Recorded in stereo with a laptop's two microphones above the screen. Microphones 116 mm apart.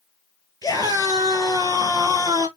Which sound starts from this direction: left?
A scream, at 0.6 s.